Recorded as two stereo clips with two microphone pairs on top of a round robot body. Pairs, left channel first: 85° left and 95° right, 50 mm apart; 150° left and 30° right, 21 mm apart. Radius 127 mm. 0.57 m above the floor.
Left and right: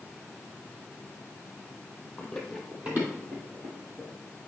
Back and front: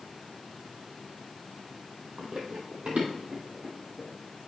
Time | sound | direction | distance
2.2 | running footsteps | 10° left | 1.2 m